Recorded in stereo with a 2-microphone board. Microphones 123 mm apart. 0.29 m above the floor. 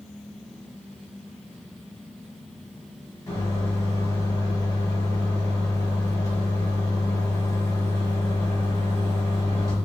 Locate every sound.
3.3 s a microwave: 30° left (ahead or behind), 1.5 m